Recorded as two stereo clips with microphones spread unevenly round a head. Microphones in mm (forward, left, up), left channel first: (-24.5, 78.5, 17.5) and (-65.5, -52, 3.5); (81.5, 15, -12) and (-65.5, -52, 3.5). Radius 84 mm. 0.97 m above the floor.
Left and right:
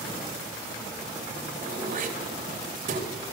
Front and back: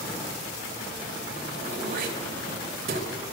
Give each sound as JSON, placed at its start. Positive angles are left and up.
{"t": 1.6, "sound": "throat clearing", "azimuth_deg": -120, "distance_m": 3.5}